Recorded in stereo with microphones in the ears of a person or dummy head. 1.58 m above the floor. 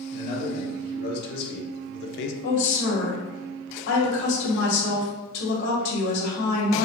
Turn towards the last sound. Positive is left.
turn(degrees=75)  # may be behind; listen again after turning